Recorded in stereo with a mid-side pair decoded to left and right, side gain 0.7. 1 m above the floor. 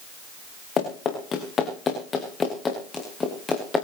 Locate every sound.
0.8 s running footsteps: 35° left, 6 m; by 3.9 s 15° left, 6.5 m